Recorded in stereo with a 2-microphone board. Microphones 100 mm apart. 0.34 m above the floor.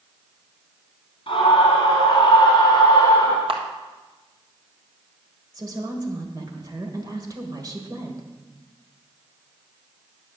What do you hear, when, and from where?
1.3 s a scream: 60° left (ahead or behind), 1.9 m; by 3.4 s 25° left (ahead or behind), 1.1 m
3.5 s a camera shutter: 60° right (ahead or behind), 1.6 m
5.5 s a woman speaking: 35° right (ahead or behind), 1.5 m